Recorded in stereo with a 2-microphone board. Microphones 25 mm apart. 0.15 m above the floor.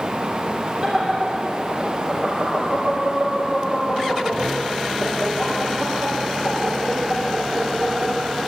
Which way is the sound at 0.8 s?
20° right (ahead or behind).